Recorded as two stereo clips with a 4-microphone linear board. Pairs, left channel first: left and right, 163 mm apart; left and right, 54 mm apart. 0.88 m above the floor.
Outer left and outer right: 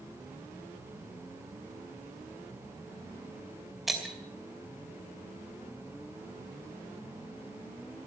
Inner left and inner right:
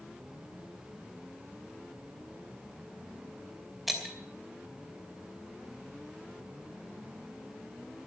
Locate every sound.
3.9 s breaking glass: centre (ahead or behind), 2.5 m